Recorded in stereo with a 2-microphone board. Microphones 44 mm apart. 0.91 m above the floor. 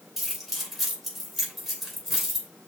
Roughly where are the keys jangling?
Centre.